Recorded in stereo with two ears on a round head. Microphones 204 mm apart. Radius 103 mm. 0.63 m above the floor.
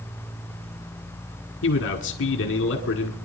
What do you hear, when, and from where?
1.6 s a man speaking: 55° left (ahead or behind), 1.8 m